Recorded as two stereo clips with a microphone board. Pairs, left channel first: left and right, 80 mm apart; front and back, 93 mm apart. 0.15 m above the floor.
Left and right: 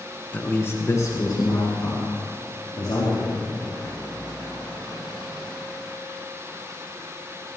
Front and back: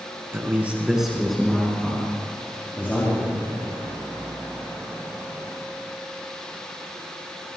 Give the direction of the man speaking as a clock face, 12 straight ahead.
7 o'clock.